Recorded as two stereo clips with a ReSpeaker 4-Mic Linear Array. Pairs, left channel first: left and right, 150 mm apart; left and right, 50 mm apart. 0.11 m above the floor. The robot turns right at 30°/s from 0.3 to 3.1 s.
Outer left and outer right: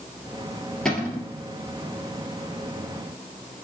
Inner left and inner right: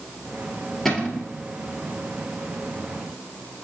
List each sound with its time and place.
0.8 s a cupboard door: 5° left (ahead or behind), 1.8 m; by 1.3 s 15° left (ahead or behind), 1.8 m